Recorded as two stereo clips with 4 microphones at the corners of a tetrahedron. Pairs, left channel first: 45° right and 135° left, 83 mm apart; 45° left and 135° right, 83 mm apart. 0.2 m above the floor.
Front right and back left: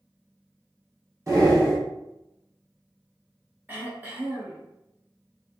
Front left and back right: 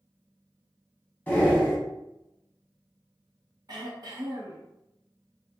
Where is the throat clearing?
160° right, 1.0 m.